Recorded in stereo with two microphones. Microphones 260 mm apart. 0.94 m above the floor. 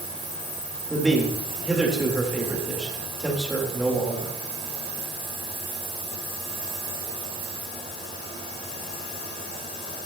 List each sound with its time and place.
0.9 s a man speaking: centre (ahead or behind), 4 m